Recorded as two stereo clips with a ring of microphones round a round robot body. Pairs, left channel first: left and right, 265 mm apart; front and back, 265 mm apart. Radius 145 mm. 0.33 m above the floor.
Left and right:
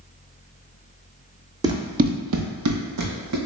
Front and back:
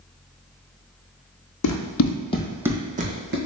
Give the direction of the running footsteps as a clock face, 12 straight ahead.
12 o'clock.